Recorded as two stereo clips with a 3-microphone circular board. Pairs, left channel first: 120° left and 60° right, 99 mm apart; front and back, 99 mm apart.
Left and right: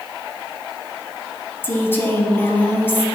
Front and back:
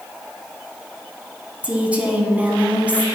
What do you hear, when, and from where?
1.6 s a woman speaking: 125° left, 1.0 m